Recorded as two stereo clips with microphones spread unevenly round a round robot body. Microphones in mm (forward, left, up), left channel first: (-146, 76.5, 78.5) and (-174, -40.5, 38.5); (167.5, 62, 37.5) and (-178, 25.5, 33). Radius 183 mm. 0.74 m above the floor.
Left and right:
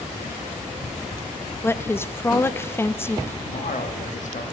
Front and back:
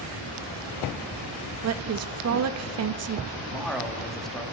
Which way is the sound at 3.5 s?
95° left.